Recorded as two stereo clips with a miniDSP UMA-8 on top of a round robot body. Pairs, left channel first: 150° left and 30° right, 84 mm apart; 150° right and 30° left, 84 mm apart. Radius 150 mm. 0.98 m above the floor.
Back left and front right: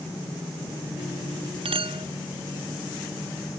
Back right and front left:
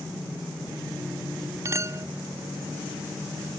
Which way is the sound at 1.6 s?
25° right.